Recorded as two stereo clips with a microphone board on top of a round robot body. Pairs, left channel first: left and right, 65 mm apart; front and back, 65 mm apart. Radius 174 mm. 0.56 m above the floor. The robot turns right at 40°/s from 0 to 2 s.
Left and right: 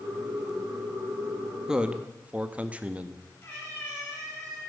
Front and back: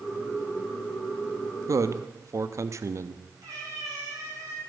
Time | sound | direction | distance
1.7 | a man speaking | 170° right | 0.9 m
3.4 | a cat meowing | 150° left | 5.5 m